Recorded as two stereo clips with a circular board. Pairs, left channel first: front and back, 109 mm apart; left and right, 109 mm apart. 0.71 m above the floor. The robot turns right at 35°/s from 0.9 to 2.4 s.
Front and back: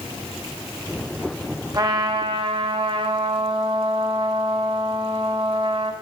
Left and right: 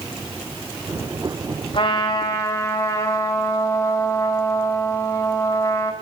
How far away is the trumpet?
About 1.5 m.